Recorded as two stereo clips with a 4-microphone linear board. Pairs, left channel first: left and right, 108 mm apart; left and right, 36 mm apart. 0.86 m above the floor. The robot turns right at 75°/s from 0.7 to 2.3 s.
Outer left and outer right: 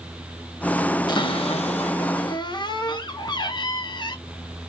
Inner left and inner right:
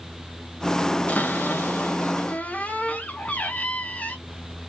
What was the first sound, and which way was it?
A cupboard door, 45° left.